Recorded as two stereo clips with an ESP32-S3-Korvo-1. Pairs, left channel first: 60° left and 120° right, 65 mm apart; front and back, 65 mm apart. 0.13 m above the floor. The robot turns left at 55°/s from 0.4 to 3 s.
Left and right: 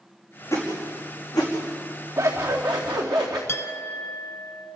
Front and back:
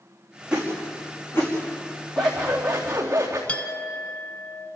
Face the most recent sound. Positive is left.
turn(degrees=55)